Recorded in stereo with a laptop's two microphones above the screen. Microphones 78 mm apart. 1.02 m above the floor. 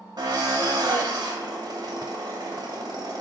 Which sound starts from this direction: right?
A drill, at 0.2 s.